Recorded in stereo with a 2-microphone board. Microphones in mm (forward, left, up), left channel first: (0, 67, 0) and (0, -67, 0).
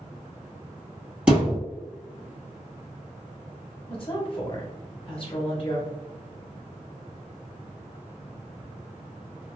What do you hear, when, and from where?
1.3 s a thud: 10° right (ahead or behind), 1.9 m
3.9 s a woman speaking: 40° left (ahead or behind), 1.0 m